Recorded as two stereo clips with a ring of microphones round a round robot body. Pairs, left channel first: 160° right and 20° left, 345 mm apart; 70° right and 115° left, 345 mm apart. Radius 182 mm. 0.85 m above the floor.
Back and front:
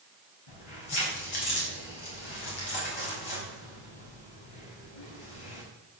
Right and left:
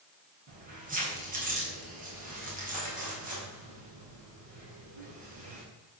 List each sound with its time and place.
0.5 s keys jangling: straight behind, 4.5 m